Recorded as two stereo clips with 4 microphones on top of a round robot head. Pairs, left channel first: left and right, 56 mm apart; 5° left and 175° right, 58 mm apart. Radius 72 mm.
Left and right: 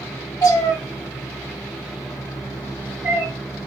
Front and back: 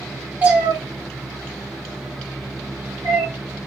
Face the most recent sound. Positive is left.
turn(degrees=-140)